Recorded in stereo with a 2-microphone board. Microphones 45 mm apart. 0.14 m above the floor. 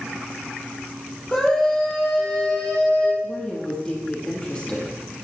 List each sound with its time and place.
1.3 s a scream: 15° left (ahead or behind), 4 m; by 3.1 s 20° left (ahead or behind), 5 m
3.2 s a woman speaking: 25° left (ahead or behind), 4.5 m